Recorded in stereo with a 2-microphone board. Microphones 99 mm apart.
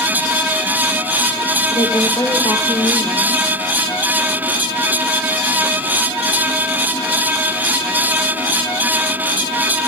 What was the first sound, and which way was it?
A woman speaking, 35° left (ahead or behind).